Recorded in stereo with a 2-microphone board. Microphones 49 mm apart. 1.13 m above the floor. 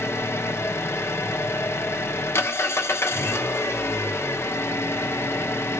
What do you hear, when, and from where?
0.0 s an engine running: 60° left (ahead or behind), 0.9 m